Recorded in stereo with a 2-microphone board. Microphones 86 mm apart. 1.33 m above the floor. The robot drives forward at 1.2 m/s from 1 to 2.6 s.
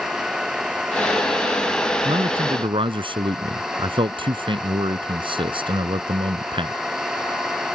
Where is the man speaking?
80° right.